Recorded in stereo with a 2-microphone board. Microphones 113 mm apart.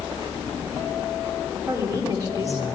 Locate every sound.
1.7 s a woman speaking: 30° right (ahead or behind), 1.5 m